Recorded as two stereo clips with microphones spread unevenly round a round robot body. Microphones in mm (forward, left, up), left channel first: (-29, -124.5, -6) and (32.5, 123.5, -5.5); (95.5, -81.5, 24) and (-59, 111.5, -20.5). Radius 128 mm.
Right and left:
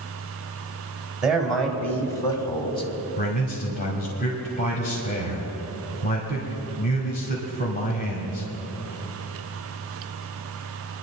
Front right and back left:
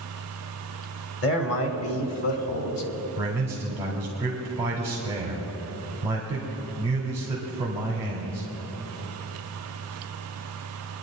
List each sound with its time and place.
1.2 s a man speaking: 10° right, 2 m; by 2.9 s 40° right, 2 m
3.2 s a man speaking: 160° right, 1.9 m